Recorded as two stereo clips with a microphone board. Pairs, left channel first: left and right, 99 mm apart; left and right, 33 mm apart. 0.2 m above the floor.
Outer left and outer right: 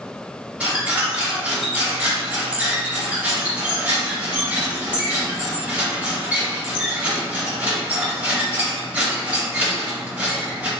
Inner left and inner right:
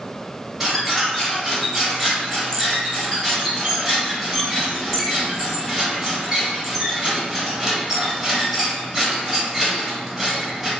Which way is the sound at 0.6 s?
15° right (ahead or behind).